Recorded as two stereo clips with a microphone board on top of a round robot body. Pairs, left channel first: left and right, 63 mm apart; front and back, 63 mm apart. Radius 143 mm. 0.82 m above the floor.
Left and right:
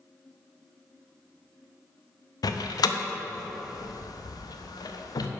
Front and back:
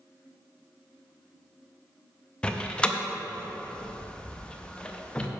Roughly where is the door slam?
Left.